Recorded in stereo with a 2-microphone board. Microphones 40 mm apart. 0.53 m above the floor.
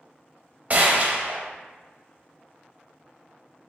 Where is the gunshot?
40° right (ahead or behind), 0.6 m.